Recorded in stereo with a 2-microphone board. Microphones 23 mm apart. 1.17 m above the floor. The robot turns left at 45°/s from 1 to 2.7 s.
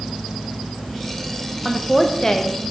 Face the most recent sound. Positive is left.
turn(degrees=135)